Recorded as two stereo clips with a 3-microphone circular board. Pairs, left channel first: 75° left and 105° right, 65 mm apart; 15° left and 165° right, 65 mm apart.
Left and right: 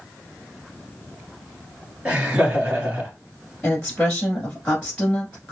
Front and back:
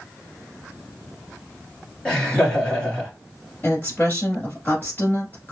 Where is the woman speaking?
15° left, 1.5 m.